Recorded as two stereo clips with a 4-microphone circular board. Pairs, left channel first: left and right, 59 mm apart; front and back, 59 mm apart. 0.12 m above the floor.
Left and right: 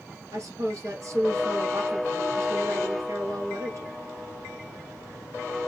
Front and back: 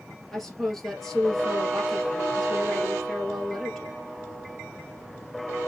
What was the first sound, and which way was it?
A woman speaking, 85° right.